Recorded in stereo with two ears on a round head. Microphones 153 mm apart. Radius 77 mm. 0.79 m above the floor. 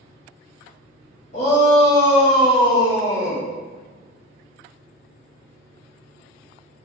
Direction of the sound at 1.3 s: 40° left (ahead or behind).